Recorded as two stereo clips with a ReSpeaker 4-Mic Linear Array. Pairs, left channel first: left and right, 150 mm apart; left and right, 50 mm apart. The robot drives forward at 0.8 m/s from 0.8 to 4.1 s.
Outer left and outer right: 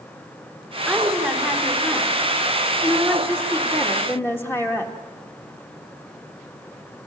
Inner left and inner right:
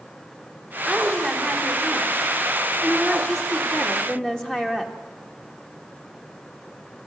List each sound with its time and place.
0.9 s a woman speaking: 10° left (ahead or behind), 5.5 m; by 5.0 s 15° left (ahead or behind), 3 m